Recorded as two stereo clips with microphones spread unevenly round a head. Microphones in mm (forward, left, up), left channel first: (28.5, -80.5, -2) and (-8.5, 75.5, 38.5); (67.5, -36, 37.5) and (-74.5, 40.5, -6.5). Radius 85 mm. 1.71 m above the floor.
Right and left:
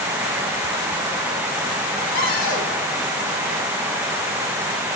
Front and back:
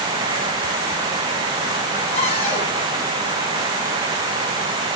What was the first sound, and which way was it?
A cupboard door, 85° right.